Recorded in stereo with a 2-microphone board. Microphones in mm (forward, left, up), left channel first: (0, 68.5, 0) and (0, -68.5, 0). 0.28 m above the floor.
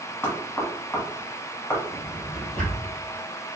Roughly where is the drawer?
Centre.